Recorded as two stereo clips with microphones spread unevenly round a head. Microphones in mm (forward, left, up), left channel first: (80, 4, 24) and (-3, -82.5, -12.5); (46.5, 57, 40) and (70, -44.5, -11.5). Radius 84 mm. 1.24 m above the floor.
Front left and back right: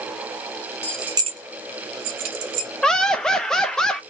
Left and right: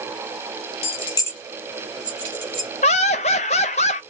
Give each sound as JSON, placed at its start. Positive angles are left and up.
{"t": 0.8, "sound": "keys jangling", "azimuth_deg": 115, "distance_m": 0.7}
{"t": 2.8, "sound": "laughter", "azimuth_deg": 130, "distance_m": 0.6}